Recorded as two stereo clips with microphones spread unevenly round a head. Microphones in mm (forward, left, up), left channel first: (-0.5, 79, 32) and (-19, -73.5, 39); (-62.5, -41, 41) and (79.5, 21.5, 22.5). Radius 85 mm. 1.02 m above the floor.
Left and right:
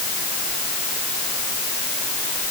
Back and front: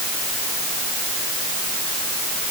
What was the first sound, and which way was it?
Only background noise.